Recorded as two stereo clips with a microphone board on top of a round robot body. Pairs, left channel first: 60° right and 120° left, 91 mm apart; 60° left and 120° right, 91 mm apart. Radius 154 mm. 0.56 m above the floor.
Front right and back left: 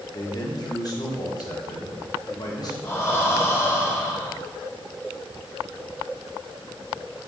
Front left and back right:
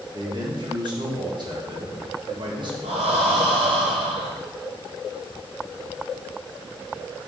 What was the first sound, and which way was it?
A man speaking, 95° right.